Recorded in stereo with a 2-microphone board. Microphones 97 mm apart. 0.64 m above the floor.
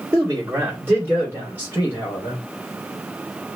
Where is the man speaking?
30° right (ahead or behind), 1.6 m; by 2.4 s 25° right (ahead or behind), 3 m.